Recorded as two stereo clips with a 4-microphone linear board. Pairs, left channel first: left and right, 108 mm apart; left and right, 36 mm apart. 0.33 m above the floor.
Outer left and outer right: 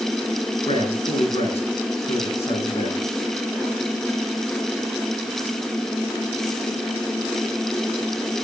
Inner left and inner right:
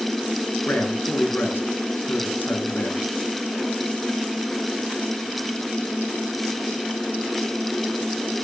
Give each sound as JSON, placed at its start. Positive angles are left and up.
{"t": 0.7, "sound": "a man speaking", "side_deg": 65, "distance_m": 4.0}